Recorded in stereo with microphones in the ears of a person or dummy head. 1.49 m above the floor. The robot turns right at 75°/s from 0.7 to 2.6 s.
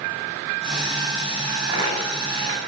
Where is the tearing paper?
10° right (ahead or behind), 9.5 m; by 2.7 s 80° right, 9.5 m.